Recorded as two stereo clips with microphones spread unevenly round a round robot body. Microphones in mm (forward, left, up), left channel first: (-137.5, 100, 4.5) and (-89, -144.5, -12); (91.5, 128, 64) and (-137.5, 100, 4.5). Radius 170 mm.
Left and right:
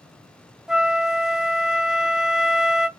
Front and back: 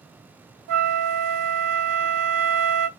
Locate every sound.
0.7 s a flute: 165° right, 0.5 m